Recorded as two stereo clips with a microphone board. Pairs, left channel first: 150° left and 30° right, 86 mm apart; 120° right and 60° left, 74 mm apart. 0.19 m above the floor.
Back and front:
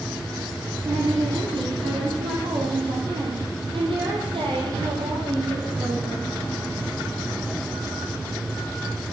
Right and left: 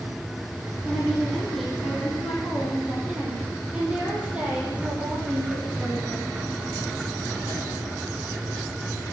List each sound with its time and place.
0.8 s a woman speaking: 35° right, 7 m; by 6.3 s straight ahead, 7.5 m